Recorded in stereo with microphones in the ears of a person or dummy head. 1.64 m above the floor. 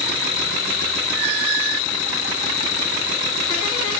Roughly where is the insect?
Left.